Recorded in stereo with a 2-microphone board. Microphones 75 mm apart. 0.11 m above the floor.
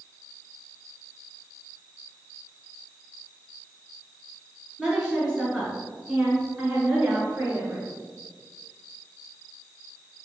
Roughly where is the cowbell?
I don't hear a cowbell.